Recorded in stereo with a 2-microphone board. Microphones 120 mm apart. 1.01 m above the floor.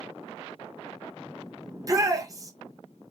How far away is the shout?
About 1.1 m.